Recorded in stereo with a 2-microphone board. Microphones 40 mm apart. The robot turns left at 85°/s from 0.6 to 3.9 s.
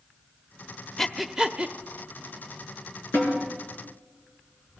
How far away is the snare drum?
About 5 m.